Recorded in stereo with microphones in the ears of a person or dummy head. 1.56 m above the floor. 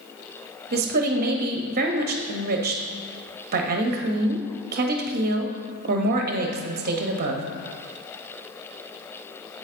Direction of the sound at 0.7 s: 45° right (ahead or behind).